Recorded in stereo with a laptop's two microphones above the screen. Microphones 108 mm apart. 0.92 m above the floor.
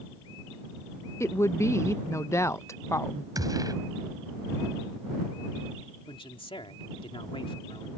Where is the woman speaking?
25° left (ahead or behind).